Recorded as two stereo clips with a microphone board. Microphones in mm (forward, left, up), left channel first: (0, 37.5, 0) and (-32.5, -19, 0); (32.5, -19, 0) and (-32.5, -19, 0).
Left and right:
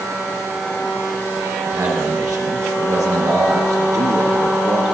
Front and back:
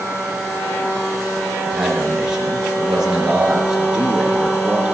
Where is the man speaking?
100° right, 4.5 m.